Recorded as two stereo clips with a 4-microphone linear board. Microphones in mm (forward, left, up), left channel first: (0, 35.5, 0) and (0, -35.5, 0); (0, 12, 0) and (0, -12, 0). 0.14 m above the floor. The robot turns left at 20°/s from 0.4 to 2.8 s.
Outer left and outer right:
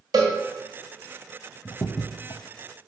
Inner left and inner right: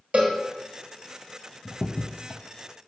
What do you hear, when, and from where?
0.1 s a cowbell: 65° right (ahead or behind), 1.7 m
1.6 s a crack: 55° left (ahead or behind), 0.6 m; by 2.4 s 70° left (ahead or behind), 0.6 m